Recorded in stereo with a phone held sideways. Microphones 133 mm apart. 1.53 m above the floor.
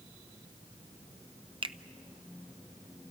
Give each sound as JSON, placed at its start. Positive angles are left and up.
{"t": 1.6, "sound": "a finger snap", "side_deg": -40, "distance_m": 0.6}